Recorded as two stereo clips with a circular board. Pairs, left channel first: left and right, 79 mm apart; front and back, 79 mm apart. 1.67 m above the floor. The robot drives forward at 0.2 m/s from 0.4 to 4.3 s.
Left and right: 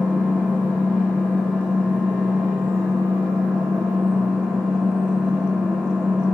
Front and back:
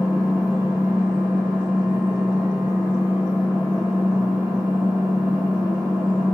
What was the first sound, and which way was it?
An engine running, 150° left.